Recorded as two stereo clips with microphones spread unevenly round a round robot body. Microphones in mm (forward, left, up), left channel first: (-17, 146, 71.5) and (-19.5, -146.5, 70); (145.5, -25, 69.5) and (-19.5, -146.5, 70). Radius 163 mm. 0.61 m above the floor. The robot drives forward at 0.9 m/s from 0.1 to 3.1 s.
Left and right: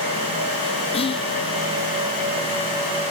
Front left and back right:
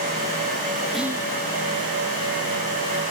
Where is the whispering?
125° left, 0.6 m; by 1.3 s 160° left, 0.7 m.